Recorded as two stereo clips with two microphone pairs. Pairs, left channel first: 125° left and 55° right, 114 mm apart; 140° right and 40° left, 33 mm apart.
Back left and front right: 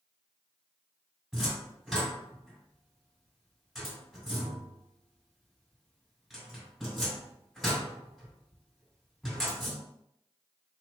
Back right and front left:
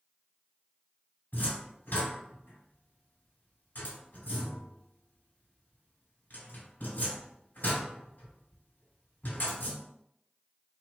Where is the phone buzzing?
I don't hear a phone buzzing.